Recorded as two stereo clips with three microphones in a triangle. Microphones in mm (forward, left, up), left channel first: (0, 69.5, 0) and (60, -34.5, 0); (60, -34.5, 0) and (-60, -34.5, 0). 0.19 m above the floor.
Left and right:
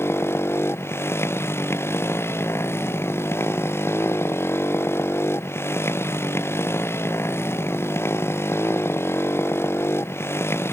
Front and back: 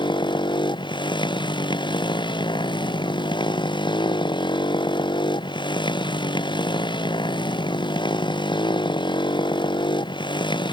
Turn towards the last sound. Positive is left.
turn(degrees=50)